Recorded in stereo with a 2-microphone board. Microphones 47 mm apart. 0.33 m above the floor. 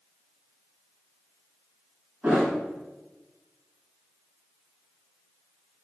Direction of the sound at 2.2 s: 30° right (ahead or behind).